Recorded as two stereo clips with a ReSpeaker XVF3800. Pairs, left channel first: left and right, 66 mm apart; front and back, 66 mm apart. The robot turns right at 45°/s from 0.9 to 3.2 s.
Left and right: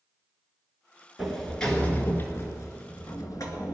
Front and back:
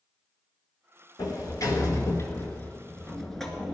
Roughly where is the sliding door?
Ahead.